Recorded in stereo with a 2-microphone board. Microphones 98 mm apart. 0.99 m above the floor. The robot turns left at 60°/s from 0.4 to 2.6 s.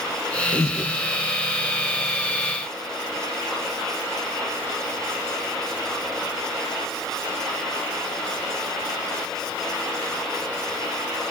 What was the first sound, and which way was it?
Breathing, 50° left (ahead or behind).